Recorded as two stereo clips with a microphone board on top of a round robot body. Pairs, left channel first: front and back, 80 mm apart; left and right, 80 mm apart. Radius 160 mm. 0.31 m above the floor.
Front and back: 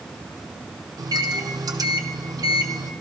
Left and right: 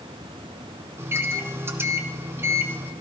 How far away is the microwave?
About 1.5 m.